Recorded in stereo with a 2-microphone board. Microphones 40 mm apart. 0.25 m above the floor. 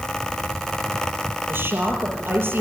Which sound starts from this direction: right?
A woman speaking, at 1.5 s.